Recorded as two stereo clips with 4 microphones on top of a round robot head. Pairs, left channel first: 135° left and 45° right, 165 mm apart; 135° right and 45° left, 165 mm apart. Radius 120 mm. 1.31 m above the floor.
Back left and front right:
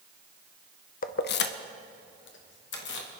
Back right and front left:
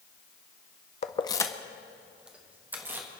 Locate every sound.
1.0 s keys jangling: 175° left, 0.5 m; by 3.1 s 125° left, 1.7 m